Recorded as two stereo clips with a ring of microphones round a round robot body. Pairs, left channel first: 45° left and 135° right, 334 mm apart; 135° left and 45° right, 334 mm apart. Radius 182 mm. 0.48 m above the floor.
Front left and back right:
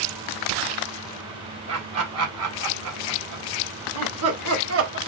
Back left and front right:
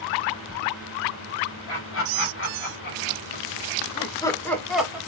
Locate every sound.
1.7 s laughter: straight behind, 3 m; by 5.0 s 125° right, 1.6 m